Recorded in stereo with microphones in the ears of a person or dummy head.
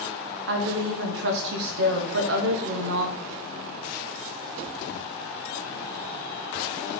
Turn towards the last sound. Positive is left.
turn(degrees=-60)  # may be behind; listen again after turning